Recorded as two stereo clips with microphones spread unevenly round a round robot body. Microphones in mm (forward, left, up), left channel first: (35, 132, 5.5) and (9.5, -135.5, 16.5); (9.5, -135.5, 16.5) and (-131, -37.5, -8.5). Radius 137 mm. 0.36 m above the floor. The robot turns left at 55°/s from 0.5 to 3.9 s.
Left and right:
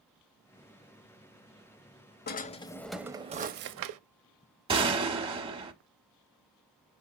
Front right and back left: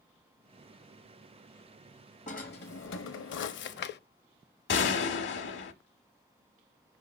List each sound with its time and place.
2.3 s a drawer: 30° left, 0.6 m; by 4.0 s 60° right, 0.6 m
4.7 s a gunshot: 25° right, 1.1 m